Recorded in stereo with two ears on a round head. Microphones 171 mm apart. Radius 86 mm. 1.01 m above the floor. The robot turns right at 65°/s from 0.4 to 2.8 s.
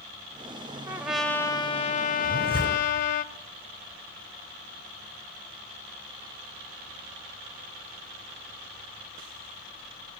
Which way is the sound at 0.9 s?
20° right.